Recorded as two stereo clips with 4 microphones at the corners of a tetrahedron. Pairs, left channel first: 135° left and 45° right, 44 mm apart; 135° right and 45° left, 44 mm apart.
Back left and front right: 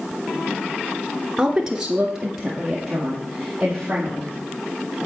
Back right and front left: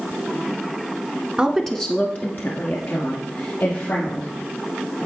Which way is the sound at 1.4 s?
15° left.